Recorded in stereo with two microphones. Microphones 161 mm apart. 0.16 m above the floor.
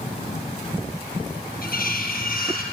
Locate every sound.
1.6 s cutlery clinking: 65° left (ahead or behind), 2 m